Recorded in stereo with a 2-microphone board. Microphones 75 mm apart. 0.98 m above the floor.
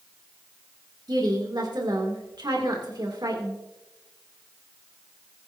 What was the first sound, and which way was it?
A woman speaking, 70° right (ahead or behind).